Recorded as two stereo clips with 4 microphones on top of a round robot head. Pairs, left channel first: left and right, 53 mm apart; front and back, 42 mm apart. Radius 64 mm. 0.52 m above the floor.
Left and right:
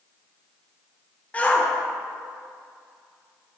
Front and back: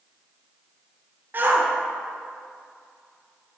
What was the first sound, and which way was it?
A shout, 150° left.